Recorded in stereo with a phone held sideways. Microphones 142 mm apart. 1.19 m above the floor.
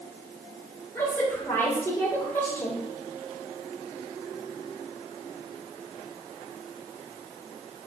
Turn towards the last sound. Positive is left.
turn(degrees=15)  # may be behind; listen again after turning